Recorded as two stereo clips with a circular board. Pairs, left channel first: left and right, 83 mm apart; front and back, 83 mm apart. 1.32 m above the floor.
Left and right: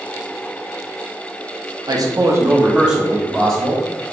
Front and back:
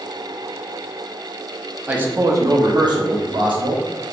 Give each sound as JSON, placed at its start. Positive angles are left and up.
{"t": 1.9, "sound": "a man speaking", "azimuth_deg": -110, "distance_m": 0.5}